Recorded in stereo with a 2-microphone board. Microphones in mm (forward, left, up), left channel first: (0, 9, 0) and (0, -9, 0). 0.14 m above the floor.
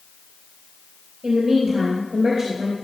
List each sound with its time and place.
1.2 s a woman speaking: 20° right (ahead or behind), 3 m